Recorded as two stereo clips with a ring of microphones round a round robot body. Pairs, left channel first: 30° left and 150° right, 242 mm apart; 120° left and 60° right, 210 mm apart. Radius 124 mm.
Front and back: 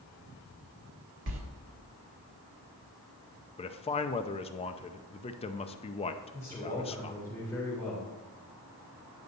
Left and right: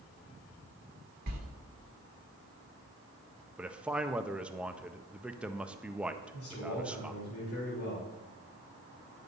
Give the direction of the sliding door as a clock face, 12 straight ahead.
4 o'clock.